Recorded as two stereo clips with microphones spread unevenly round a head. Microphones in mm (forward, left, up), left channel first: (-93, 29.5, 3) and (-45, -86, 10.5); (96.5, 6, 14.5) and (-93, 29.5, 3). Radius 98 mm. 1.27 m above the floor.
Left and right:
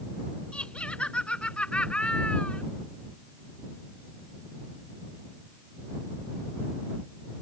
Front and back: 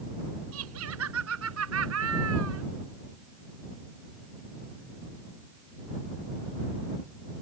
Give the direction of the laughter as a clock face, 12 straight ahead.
6 o'clock.